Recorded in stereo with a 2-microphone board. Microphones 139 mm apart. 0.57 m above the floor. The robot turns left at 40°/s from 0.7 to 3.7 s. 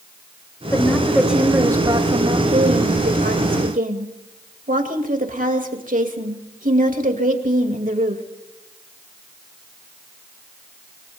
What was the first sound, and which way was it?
A woman speaking, 20° left.